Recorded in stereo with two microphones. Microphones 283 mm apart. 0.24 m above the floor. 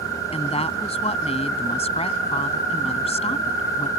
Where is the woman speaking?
20° left (ahead or behind).